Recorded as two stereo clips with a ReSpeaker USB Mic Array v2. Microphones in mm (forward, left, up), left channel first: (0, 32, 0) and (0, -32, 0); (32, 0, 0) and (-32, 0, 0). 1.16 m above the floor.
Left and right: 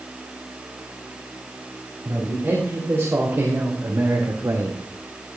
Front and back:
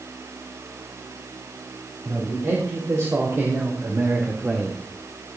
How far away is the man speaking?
About 4 m.